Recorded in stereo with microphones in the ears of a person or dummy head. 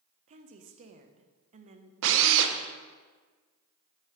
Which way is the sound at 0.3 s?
40° right (ahead or behind).